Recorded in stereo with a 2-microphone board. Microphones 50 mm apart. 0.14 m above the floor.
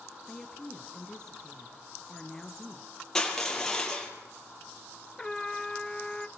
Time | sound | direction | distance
0.3 | a woman speaking | 15° left (ahead or behind) | 2 m
3.1 | crushing | 10° left (ahead or behind) | 4.5 m
5.2 | a trumpet | 10° left (ahead or behind) | 0.7 m